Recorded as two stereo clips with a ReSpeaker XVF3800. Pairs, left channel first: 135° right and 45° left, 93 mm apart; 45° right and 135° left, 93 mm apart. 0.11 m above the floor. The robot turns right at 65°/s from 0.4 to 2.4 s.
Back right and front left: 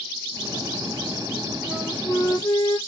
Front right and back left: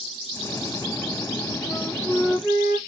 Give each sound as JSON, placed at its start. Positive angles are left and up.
{"t": 1.7, "sound": "a flute", "azimuth_deg": 160, "distance_m": 2.0}